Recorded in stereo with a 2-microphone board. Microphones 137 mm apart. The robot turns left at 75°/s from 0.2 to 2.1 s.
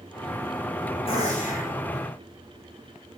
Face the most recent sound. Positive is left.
turn(degrees=60)